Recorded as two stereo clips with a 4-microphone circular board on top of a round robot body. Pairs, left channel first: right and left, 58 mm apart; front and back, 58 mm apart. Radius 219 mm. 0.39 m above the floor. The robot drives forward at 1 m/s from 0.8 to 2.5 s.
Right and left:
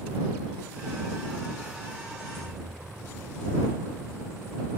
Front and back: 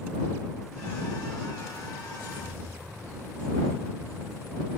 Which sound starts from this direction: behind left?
Keys jangling, at 2.1 s.